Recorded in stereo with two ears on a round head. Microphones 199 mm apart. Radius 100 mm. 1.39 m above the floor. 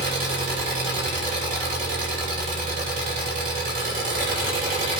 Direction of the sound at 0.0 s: 40° right (ahead or behind).